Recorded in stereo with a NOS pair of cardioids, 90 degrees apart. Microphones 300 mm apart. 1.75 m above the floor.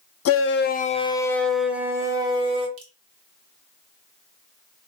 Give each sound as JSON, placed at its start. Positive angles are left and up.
{"t": 0.2, "sound": "a shout", "azimuth_deg": 55, "distance_m": 0.7}
{"t": 2.8, "sound": "dripping", "azimuth_deg": -55, "distance_m": 1.5}